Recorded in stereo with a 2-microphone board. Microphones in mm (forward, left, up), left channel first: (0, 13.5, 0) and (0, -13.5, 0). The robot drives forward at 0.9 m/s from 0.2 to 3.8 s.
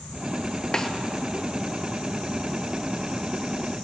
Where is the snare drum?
25° left (ahead or behind), 1.3 m.